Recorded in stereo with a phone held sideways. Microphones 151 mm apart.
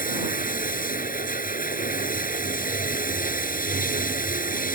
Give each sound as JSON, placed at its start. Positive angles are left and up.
{"t": 0.0, "sound": "running water", "side_deg": 60}